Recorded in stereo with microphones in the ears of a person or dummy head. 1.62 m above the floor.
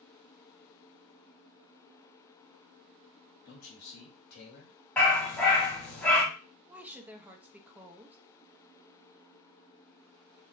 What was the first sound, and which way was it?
A man speaking, 65° left (ahead or behind).